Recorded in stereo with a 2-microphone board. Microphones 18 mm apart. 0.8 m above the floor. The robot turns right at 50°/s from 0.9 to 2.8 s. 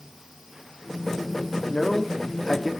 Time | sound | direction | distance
1.7 | a man speaking | 50° left (ahead or behind) | 1.2 m